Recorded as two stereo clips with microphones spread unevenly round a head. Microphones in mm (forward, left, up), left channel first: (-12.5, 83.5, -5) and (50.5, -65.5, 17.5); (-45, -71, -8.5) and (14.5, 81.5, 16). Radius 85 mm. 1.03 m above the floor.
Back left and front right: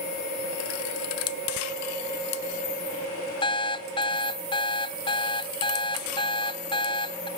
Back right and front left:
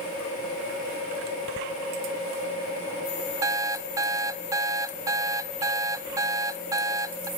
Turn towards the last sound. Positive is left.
turn(degrees=70)